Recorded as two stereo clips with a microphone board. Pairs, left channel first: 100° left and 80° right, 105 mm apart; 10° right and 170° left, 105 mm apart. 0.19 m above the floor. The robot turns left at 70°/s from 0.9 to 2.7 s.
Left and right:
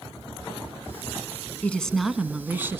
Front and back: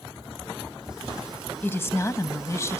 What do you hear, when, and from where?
1.6 s a woman speaking: 40° left, 1.1 m; by 2.8 s 35° right, 1.1 m